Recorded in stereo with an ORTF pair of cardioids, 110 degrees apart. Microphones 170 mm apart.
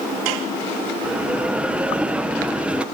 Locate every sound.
1.0 s a bell: 5° right, 1.0 m